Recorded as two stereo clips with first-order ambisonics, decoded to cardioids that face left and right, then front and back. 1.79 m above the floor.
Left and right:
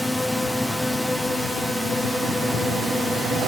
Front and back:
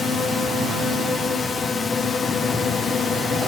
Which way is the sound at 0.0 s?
10° left.